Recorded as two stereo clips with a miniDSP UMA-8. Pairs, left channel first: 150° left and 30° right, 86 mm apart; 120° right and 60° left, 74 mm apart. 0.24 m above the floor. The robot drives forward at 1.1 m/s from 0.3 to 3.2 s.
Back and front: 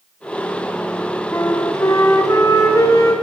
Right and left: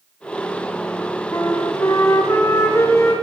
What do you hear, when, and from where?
1.3 s a flute: 155° right, 2.5 m; by 3.1 s 165° right, 4.5 m